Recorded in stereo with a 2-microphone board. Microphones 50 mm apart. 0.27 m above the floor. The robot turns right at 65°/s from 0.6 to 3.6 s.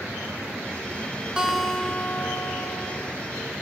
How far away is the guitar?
About 1.3 m.